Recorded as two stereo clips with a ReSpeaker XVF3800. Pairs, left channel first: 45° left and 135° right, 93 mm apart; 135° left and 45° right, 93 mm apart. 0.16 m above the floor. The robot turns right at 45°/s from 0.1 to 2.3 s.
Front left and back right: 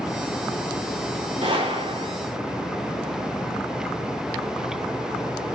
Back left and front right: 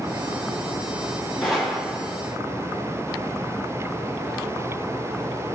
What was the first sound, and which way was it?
A gunshot, 140° right.